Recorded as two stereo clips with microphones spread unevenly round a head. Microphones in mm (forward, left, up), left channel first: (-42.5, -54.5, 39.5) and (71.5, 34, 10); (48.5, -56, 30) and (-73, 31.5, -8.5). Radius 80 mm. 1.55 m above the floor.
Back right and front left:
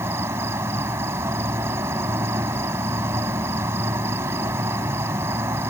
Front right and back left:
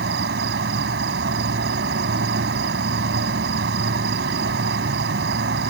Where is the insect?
115° left.